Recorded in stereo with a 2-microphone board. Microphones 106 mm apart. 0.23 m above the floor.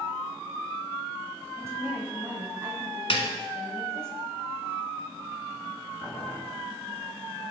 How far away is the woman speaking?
About 1.2 m.